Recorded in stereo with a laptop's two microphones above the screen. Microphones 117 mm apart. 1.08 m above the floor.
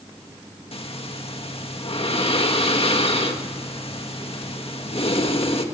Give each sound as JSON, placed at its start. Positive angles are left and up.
{"t": 0.7, "sound": "breathing", "side_deg": 55, "distance_m": 1.8}